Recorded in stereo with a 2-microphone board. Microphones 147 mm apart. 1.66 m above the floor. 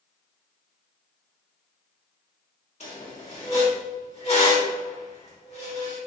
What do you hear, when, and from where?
2.8 s a squeak: 45° left (ahead or behind), 1.1 m